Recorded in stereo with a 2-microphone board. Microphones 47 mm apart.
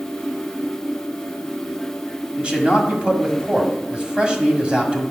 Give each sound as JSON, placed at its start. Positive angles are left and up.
{"t": 2.4, "sound": "a man speaking", "side_deg": -20, "distance_m": 1.6}